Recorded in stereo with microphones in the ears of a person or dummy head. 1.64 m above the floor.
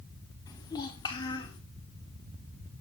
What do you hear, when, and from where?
0.5 s a child speaking: 15° left (ahead or behind), 1.6 m; by 1.6 s 20° left (ahead or behind), 2.5 m